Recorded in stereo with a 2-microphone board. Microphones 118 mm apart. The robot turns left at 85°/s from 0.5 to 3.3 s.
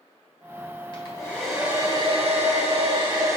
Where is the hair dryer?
50° left, 2.5 m; by 3.4 s 155° right, 2.5 m.